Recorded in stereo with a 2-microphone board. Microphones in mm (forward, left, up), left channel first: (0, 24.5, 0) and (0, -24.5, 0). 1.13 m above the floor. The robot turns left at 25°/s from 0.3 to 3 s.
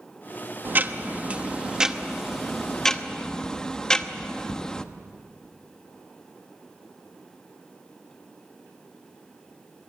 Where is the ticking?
135° right, 0.9 m; by 4.8 s 165° left, 0.9 m.